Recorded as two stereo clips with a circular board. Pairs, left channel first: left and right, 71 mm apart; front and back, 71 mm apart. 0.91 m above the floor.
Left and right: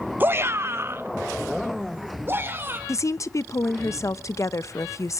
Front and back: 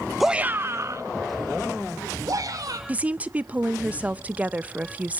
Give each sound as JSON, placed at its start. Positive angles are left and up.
{"t": 0.2, "sound": "a shout", "azimuth_deg": -90, "distance_m": 0.5}
{"t": 2.9, "sound": "a woman speaking", "azimuth_deg": 120, "distance_m": 0.5}